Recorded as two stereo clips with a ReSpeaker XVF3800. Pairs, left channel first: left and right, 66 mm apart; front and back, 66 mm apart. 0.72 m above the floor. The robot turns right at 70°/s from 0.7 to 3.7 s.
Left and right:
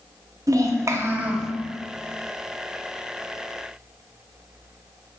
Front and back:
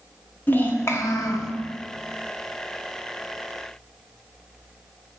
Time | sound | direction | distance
0.5 | a child speaking | 60° right | 0.7 m